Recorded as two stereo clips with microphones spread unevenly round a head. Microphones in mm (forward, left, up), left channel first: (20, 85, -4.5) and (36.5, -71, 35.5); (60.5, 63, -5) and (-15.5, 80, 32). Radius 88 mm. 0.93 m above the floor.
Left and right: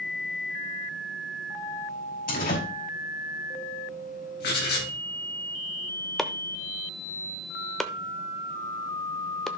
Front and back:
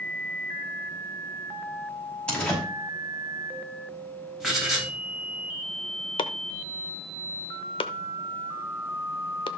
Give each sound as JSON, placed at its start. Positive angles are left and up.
{"t": 2.3, "sound": "a door slam", "azimuth_deg": 65, "distance_m": 5.5}
{"t": 4.4, "sound": "writing", "azimuth_deg": 80, "distance_m": 4.0}
{"t": 6.2, "sound": "chopping", "azimuth_deg": -15, "distance_m": 0.7}